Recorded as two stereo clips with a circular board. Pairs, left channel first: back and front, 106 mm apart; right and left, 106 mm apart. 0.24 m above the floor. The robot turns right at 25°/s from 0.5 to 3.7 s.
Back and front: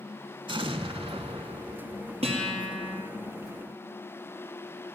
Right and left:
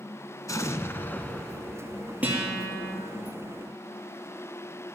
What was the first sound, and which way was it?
An explosion, 35° right.